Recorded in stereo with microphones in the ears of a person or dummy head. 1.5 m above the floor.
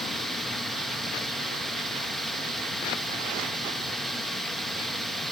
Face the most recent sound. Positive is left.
turn(degrees=0)  # may be behind; listen again after turning